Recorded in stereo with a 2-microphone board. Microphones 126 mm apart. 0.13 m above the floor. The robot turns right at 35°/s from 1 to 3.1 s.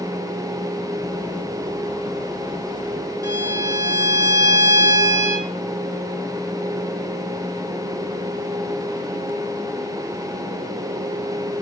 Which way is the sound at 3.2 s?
25° right (ahead or behind).